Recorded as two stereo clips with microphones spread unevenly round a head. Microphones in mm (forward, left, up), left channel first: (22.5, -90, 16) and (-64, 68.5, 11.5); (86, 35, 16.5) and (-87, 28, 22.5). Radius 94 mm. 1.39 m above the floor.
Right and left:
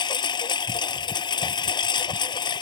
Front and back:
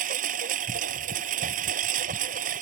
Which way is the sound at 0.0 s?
125° right.